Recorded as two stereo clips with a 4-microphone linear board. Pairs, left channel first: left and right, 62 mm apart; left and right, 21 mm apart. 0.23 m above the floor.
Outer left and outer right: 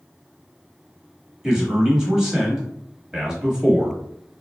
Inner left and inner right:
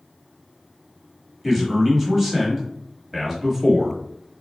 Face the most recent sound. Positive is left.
turn(degrees=-10)  # may be behind; listen again after turning